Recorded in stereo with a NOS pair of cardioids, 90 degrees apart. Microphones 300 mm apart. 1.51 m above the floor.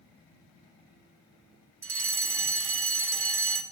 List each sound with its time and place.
1.8 s a fire alarm: 50° right, 2.5 m